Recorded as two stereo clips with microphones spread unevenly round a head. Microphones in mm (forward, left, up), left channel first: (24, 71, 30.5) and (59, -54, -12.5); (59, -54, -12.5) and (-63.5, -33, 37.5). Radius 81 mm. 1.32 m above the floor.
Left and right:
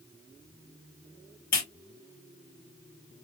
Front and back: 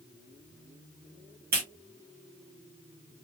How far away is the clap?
About 1.9 m.